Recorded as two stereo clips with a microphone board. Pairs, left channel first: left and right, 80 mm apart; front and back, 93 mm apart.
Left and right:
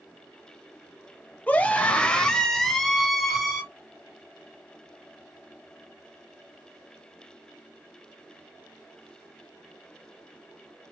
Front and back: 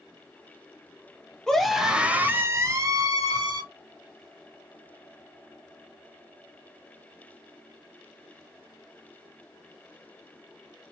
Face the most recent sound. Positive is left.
turn(degrees=-175)